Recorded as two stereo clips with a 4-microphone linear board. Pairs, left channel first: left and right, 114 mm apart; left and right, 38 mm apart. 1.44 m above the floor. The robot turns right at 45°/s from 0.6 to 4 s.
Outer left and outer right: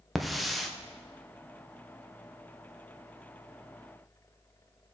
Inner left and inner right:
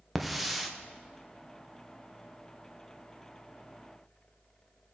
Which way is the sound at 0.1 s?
Centre (ahead or behind).